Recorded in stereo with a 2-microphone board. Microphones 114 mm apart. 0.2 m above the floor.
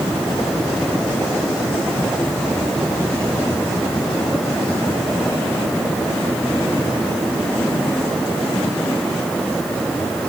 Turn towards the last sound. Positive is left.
No sound to turn to.